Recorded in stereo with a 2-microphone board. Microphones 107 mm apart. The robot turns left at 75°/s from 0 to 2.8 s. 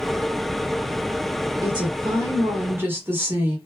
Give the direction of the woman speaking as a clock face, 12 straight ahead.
2 o'clock.